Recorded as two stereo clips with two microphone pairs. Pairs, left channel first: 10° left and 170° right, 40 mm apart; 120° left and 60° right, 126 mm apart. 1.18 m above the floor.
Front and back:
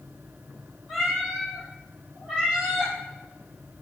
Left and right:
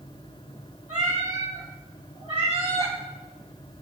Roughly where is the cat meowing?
Right.